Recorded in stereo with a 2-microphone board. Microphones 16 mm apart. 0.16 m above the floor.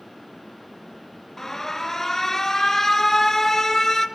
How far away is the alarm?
About 2 m.